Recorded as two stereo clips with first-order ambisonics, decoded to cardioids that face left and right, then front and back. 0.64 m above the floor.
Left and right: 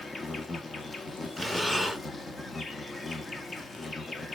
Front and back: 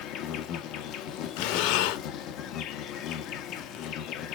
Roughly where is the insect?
Ahead.